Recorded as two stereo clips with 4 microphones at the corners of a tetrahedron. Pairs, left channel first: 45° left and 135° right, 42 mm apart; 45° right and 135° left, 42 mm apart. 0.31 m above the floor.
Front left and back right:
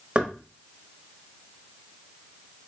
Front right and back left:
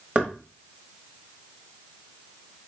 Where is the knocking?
Straight behind, 0.8 m.